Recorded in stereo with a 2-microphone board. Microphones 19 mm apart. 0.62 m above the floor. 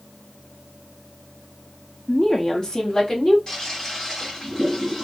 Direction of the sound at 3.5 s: 35° left (ahead or behind).